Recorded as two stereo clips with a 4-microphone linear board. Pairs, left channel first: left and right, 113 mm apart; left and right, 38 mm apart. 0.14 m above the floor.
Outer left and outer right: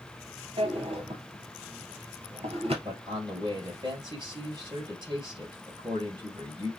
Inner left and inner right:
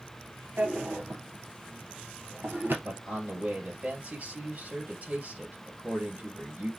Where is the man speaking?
40° right (ahead or behind), 2.5 m.